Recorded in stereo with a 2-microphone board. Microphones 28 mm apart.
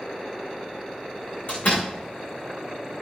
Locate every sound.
1.5 s a door slam: 50° left (ahead or behind), 7 m